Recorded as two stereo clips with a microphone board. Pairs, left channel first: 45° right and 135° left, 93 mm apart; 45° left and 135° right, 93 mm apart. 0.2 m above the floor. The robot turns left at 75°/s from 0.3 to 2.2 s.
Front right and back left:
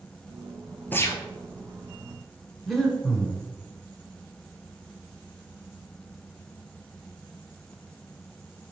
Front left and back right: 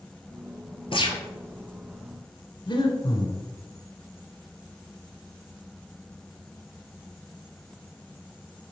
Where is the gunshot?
25° left, 1.2 m; by 1.2 s straight ahead, 1.2 m.